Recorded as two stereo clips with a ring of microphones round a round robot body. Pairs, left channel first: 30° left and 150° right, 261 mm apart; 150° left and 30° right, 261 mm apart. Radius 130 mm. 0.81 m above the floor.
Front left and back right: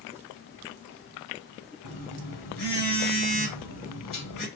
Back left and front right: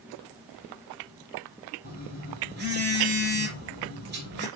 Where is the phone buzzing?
20° left, 4.5 m.